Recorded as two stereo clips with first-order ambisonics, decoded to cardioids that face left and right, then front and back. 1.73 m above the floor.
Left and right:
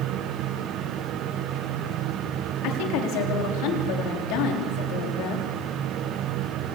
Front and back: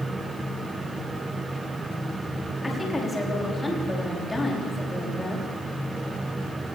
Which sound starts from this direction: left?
A woman speaking, at 2.6 s.